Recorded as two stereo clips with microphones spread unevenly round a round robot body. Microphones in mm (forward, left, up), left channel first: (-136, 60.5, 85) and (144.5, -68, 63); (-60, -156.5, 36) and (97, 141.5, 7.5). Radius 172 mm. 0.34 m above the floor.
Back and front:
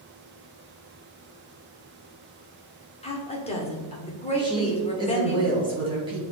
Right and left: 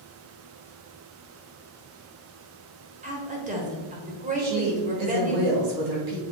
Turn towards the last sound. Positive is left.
turn(degrees=50)